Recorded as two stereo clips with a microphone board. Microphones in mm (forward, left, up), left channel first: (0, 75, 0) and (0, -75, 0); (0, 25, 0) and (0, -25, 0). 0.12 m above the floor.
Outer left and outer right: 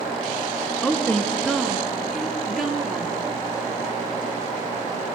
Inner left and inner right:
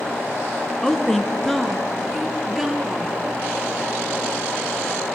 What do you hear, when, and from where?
0.8 s a woman speaking: 10° left (ahead or behind), 1.3 m; by 3.1 s 5° right (ahead or behind), 2.5 m